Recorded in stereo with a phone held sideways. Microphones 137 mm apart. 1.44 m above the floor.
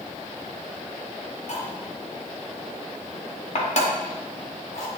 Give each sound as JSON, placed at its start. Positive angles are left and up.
{"t": 1.5, "sound": "cutlery clinking", "side_deg": 60, "distance_m": 1.4}